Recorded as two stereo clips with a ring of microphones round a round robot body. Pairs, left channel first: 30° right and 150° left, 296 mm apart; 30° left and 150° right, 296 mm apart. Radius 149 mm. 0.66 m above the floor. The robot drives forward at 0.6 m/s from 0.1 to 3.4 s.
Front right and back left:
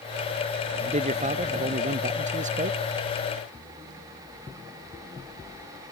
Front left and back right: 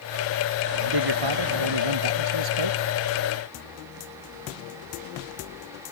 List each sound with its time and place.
0.8 s a man speaking: 140° right; by 2.8 s 145° right